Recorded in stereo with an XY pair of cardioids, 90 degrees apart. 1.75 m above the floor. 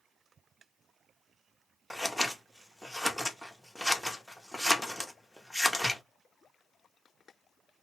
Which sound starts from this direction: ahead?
Scissors, at 1.9 s.